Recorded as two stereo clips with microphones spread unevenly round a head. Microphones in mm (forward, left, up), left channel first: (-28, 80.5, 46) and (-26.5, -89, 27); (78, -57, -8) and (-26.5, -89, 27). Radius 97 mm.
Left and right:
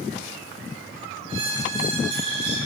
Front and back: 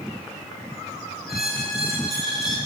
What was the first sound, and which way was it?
A squeak, 75° right.